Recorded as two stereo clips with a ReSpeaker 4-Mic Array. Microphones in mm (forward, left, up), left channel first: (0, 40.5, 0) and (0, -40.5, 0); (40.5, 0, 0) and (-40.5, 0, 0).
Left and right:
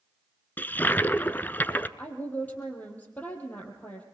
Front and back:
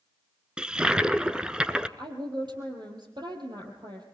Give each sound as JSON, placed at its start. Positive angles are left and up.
{"t": 0.6, "sound": "a toilet flushing", "azimuth_deg": 115, "distance_m": 0.7}
{"t": 2.0, "sound": "a woman speaking", "azimuth_deg": 160, "distance_m": 4.0}